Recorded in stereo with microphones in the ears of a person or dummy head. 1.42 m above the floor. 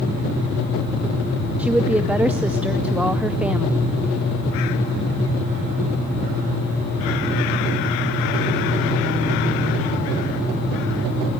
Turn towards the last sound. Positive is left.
turn(degrees=-5)  # may be behind; listen again after turning